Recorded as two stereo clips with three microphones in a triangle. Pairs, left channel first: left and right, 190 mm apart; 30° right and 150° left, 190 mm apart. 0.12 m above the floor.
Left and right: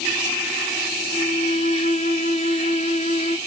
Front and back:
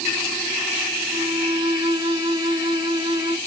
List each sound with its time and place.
1.1 s a violin: 100° left, 1.3 m